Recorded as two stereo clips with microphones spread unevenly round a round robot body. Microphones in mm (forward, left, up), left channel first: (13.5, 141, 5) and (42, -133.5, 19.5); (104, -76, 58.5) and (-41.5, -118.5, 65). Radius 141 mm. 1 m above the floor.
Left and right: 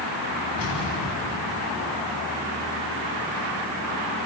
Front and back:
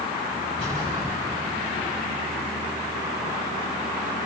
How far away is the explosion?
About 7.5 m.